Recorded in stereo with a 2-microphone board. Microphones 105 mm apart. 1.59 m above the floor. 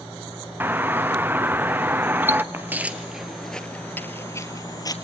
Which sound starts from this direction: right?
Footsteps, at 2.5 s.